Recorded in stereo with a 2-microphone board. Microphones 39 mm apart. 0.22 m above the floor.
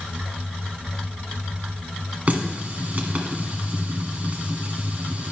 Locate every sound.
2.3 s a running tap: 40° right (ahead or behind), 1.2 m